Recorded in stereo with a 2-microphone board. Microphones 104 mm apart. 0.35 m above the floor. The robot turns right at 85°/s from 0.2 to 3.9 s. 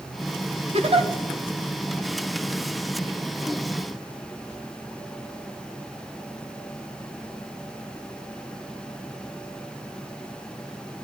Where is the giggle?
100° right, 0.9 m; by 1.1 s 65° right, 0.9 m.